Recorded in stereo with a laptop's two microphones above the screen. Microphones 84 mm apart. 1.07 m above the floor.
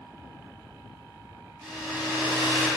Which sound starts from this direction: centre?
A hair dryer, at 1.6 s.